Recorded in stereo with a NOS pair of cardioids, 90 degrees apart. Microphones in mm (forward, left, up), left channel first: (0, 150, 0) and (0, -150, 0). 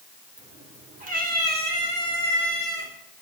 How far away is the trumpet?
No trumpet in this recording.